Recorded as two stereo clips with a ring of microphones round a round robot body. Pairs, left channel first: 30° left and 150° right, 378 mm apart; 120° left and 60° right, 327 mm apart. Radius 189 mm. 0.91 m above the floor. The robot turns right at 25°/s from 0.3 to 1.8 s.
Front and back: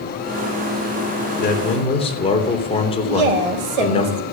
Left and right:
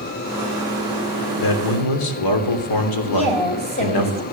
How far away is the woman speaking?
About 4 m.